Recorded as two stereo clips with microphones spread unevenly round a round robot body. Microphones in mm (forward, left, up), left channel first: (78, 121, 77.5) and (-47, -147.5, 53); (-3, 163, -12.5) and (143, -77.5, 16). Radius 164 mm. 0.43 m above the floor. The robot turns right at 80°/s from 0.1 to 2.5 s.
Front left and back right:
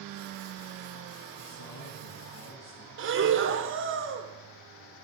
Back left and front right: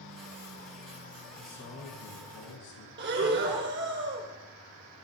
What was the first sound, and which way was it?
A man speaking, 25° left.